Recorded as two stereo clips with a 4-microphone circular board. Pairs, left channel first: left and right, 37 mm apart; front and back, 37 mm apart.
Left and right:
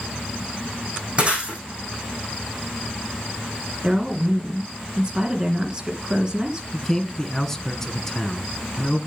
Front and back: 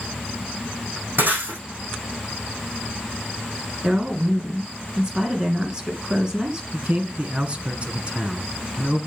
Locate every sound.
1.2 s breaking glass: 145° right, 4.5 m
3.8 s a woman speaking: 125° right, 1.8 m
6.7 s a man speaking: 160° left, 1.4 m